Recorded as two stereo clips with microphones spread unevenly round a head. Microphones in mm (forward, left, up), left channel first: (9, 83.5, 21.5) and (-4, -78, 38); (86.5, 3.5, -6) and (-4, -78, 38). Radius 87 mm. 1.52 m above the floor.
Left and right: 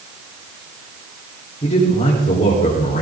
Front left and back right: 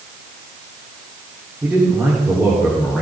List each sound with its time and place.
1.6 s a man speaking: 145° left, 4.5 m; by 3.0 s 135° left, 4.5 m